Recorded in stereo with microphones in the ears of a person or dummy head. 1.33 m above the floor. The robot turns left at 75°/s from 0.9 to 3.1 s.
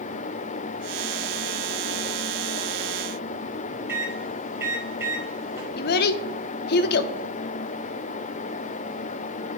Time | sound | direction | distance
3.9 | a microwave | 15° right (ahead or behind) | 1.9 m
5.8 | a child speaking | 60° left (ahead or behind) | 0.5 m